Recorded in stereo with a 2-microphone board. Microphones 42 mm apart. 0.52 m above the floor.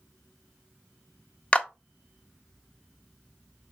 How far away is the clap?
About 0.6 m.